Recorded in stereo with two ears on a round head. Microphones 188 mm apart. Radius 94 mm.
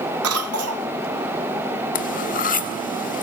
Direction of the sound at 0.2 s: 85° right.